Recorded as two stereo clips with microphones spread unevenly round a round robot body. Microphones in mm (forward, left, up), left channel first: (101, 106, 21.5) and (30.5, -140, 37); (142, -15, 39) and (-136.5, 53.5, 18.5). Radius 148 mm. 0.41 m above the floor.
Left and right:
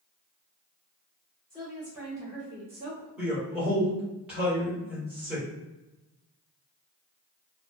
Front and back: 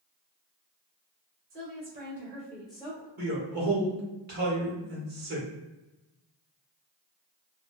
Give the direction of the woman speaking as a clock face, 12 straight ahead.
7 o'clock.